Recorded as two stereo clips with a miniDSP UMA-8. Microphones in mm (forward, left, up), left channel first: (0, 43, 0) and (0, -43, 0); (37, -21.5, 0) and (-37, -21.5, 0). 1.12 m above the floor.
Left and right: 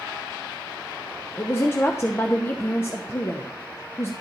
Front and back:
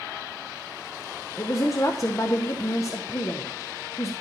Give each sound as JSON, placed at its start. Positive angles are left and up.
{"t": 1.4, "sound": "a woman speaking", "azimuth_deg": 35, "distance_m": 0.6}